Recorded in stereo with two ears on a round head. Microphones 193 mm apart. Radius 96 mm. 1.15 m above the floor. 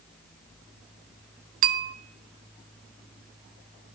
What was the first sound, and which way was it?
A bell, 40° right (ahead or behind).